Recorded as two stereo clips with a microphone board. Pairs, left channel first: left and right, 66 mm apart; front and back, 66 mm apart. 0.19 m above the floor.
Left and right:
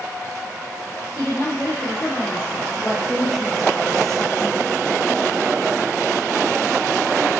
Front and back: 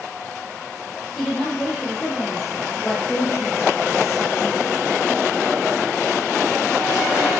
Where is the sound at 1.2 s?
80° left, 3 m.